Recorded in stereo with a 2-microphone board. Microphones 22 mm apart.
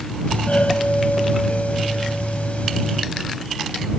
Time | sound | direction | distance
0.3 | a doorbell | 75° left (ahead or behind) | ?